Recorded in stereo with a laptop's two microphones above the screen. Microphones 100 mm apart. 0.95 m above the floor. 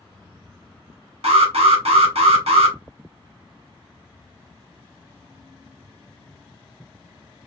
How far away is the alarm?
About 1.3 m.